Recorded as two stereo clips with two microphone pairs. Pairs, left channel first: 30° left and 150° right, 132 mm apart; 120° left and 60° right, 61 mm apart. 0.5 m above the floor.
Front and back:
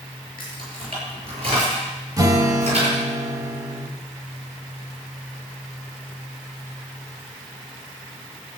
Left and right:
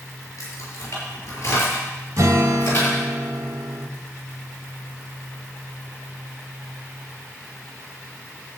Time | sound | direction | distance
0.4 | keys jangling | 155° left | 5.5 m
2.2 | a guitar | 85° right | 0.9 m